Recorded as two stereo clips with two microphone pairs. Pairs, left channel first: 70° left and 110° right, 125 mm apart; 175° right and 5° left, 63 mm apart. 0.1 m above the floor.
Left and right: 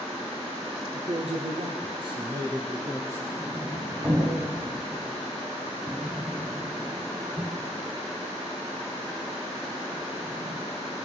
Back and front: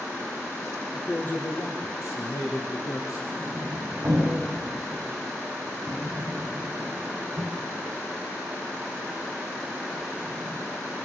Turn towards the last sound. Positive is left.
turn(degrees=-45)